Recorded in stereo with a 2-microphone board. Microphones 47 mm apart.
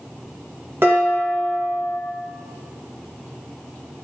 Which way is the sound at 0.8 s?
50° right (ahead or behind).